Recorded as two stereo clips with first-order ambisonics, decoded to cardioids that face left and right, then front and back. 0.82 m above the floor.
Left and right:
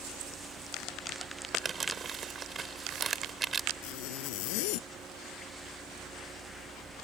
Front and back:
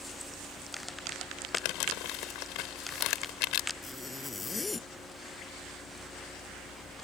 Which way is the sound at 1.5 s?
20° right.